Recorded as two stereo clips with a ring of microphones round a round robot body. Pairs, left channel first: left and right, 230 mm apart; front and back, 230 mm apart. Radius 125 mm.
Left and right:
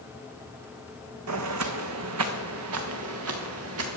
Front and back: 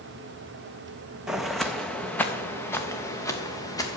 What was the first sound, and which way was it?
Footsteps, 95° right.